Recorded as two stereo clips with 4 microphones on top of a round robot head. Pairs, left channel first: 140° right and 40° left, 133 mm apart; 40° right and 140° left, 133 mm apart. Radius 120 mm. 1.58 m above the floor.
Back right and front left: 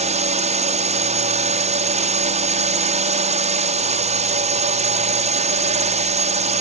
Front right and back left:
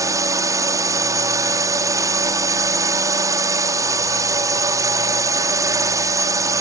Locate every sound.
0.0 s a drone: 75° left